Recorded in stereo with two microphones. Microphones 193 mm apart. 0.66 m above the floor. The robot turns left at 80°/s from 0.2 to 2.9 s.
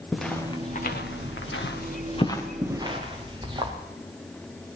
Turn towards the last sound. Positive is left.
turn(degrees=-25)  # may be behind; listen again after turning